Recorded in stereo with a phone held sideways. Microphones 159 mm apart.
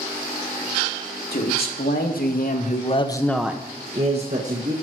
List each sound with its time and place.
1.3 s a man speaking: 80° left, 2.5 m; by 4.7 s 55° right (ahead or behind), 2 m